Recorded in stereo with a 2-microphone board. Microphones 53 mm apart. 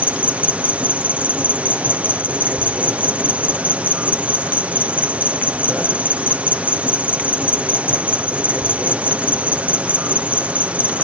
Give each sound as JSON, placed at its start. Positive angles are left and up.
{"t": 0.0, "sound": "an insect", "side_deg": -25}